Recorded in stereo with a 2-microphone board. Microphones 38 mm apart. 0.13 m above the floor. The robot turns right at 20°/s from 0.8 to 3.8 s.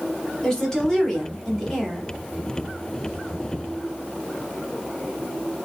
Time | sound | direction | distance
0.4 | a woman speaking | 15° left (ahead or behind) | 1.2 m